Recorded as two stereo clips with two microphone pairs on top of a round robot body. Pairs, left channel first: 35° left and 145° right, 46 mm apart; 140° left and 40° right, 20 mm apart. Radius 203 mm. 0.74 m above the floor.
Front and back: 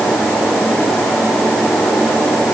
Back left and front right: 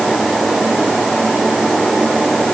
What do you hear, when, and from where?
Only background noise.